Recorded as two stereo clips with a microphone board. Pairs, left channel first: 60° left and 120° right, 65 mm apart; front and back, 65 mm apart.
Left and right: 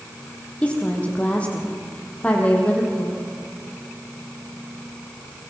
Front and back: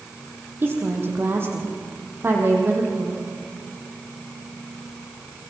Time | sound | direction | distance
0.6 | a woman speaking | 130° left | 4.5 m